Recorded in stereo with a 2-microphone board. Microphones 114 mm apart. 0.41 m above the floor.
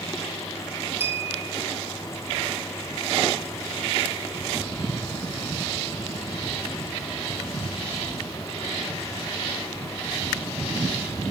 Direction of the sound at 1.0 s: 20° right (ahead or behind).